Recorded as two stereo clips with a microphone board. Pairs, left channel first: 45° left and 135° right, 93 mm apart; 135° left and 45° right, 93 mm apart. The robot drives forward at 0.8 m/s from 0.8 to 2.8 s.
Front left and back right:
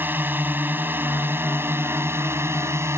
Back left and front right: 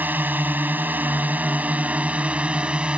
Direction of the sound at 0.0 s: 90° right.